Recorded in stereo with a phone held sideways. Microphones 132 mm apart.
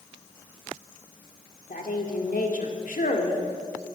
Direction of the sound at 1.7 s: 75° left (ahead or behind).